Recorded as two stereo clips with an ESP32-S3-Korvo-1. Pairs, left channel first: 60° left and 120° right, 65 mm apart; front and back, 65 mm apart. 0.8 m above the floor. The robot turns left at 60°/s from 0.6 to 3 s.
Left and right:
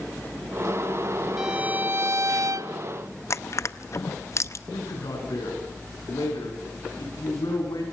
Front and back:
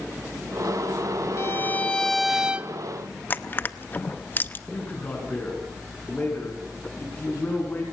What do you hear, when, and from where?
1.4 s a violin: 40° right, 0.6 m; by 2.7 s 120° right, 0.6 m
3.3 s crushing: 45° left, 0.6 m
4.7 s a man speaking: 65° left, 8.5 m